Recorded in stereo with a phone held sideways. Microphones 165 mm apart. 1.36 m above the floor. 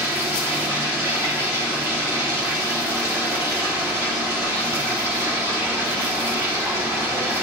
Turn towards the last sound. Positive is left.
turn(degrees=-15)  # may be behind; listen again after turning